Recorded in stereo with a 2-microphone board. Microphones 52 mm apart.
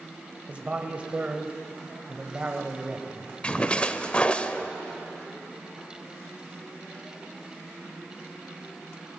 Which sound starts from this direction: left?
A splash, at 3.4 s.